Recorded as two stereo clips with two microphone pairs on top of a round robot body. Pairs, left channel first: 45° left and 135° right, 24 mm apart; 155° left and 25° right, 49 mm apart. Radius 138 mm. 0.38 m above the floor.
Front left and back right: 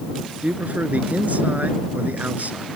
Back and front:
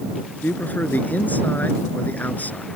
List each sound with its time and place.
0.4 s a man speaking: 150° right